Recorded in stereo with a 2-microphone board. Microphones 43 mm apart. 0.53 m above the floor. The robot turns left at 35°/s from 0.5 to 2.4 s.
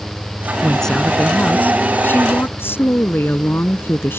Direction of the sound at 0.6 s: 170° left.